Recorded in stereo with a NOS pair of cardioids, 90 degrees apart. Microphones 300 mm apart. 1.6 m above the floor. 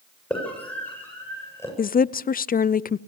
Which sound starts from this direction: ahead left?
A woman speaking, at 1.8 s.